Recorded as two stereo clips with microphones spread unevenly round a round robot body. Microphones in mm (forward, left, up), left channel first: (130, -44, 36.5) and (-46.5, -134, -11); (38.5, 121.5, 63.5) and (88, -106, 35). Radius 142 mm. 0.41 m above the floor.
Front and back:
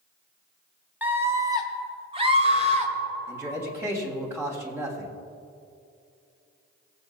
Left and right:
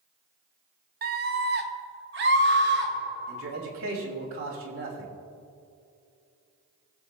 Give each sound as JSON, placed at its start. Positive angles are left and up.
{"t": 1.0, "sound": "a scream", "azimuth_deg": -90, "distance_m": 1.3}
{"t": 3.3, "sound": "a man speaking", "azimuth_deg": -85, "distance_m": 3.0}